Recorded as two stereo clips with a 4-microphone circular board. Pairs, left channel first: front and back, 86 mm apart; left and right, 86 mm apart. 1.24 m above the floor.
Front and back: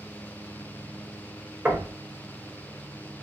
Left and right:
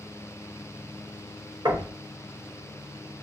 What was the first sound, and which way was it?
Knocking, 115° right.